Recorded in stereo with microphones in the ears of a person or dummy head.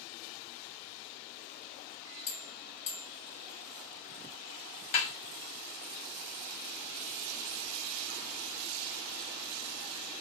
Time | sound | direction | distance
2.3 | a bell | 40° left (ahead or behind) | 1.5 m
4.9 | a snare drum | 40° left (ahead or behind) | 0.8 m